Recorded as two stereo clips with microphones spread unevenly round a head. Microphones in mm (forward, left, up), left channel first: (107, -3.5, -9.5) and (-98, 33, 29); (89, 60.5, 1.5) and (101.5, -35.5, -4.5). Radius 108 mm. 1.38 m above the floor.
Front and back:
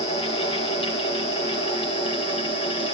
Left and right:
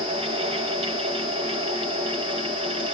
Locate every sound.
0.0 s a fan: 70° right, 3.5 m